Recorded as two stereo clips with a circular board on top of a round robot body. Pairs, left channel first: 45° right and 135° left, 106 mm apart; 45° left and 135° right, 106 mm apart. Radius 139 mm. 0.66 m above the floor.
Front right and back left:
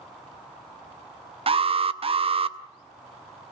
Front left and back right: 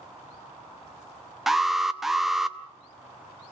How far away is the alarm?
About 1.0 m.